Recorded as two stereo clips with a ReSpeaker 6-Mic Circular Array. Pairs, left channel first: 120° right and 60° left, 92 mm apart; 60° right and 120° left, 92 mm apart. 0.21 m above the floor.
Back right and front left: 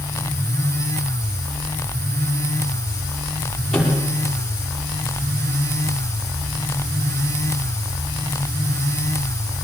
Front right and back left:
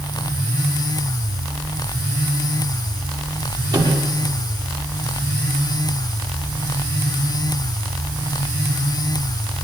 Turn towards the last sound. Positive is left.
turn(degrees=160)